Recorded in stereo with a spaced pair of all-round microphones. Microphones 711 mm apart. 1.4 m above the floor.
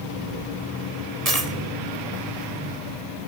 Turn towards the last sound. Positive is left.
turn(degrees=-55)  # may be behind; listen again after turning